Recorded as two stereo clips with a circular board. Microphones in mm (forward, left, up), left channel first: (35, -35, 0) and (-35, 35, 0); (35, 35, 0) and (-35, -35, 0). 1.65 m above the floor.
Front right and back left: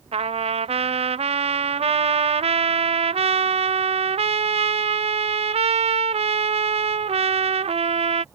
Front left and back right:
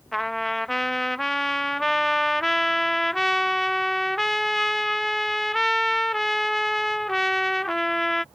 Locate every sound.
0.1 s a trumpet: 135° left